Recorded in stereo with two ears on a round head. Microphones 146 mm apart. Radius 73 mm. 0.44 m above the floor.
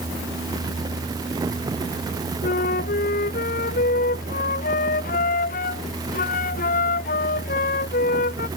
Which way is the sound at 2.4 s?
50° left (ahead or behind).